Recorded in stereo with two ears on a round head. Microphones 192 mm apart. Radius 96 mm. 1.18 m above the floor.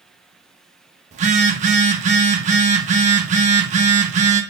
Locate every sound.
1.1 s a phone buzzing: 35° right (ahead or behind), 1.2 m